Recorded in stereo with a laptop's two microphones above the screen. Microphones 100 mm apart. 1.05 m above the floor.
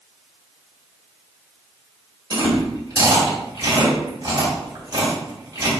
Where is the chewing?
45° right (ahead or behind), 2 m.